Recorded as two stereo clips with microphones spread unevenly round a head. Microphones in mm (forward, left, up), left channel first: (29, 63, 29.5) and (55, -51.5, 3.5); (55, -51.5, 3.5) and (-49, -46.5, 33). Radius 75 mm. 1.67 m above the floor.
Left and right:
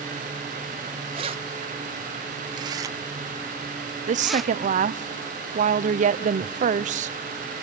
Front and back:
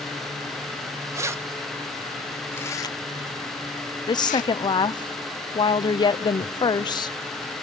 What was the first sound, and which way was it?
Keys jangling, 135° right.